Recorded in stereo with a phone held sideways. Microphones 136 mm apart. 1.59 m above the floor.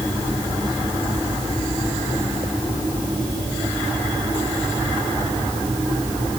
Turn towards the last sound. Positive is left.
No sound to turn to.